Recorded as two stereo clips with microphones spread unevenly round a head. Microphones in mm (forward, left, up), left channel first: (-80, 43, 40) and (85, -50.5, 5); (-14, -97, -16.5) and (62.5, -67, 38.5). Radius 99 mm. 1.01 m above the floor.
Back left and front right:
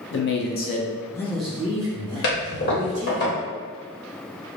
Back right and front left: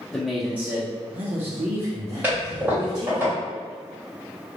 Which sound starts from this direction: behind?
A man speaking, at 0.1 s.